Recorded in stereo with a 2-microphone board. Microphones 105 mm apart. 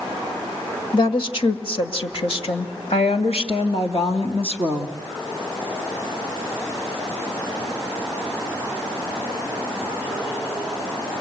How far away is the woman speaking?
About 1.9 m.